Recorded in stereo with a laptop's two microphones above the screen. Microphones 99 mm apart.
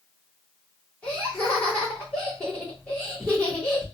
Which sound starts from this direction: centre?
Laughter, at 1.0 s.